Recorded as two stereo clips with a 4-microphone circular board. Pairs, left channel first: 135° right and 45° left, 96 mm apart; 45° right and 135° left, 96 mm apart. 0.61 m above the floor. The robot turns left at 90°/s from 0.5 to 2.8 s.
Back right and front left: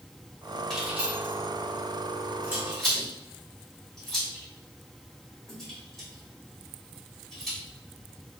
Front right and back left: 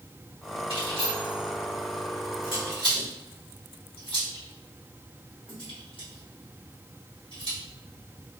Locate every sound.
0.7 s keys jangling: 140° left, 1.9 m; by 7.6 s 50° right, 1.9 m